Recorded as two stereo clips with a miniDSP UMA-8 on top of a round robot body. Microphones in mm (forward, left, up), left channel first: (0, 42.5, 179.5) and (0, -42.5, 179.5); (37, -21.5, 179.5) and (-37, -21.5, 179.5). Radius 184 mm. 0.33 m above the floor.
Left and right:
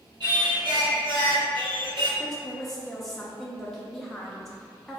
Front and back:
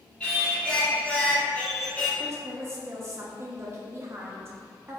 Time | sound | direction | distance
0.2 | singing | 75° right | 1.5 m
2.2 | a woman speaking | 175° left | 0.9 m